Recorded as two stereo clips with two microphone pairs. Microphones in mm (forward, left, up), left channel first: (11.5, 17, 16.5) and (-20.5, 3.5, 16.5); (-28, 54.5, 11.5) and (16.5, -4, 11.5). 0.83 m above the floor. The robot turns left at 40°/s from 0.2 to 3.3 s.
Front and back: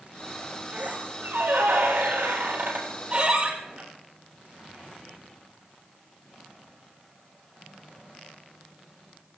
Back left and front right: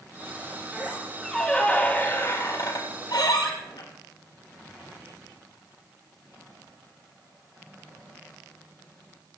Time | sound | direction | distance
0.7 | a squeak | 120° right | 5.5 m